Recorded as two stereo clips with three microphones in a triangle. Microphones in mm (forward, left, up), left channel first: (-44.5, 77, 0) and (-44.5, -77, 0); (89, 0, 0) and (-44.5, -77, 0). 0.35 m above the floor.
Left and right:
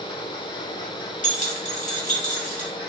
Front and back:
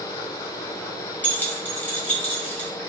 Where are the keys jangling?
105° left, 1.5 m.